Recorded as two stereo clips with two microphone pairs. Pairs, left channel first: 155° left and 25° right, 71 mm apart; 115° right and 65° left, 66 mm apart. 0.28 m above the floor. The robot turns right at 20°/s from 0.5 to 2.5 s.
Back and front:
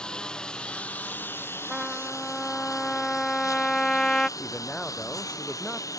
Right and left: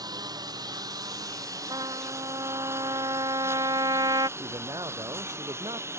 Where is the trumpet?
60° left; by 4.3 s 75° left.